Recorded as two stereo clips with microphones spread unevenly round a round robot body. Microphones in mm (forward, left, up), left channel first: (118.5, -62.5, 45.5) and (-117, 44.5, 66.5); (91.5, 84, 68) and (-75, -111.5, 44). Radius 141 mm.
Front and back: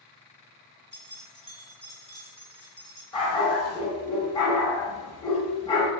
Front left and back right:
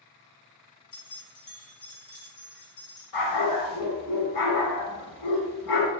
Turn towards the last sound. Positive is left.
turn(degrees=50)